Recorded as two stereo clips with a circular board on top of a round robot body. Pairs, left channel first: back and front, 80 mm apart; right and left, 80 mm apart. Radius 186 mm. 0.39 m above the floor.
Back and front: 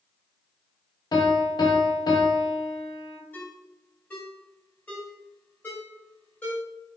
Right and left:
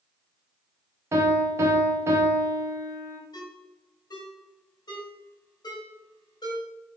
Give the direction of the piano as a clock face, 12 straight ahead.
7 o'clock.